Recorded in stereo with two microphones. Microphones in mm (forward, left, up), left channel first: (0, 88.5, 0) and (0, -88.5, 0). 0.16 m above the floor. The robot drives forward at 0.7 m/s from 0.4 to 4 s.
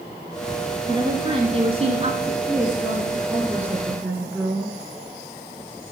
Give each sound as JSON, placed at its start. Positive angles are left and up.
{"t": 0.9, "sound": "a woman speaking", "side_deg": -25, "distance_m": 1.9}
{"t": 2.5, "sound": "a woman speaking", "side_deg": -15, "distance_m": 6.5}